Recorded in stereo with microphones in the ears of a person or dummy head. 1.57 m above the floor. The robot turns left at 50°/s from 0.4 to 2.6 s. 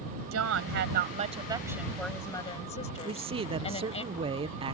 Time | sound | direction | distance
0.3 | a woman speaking | 100° right | ?
3.0 | a man speaking | 30° right (ahead or behind) | ?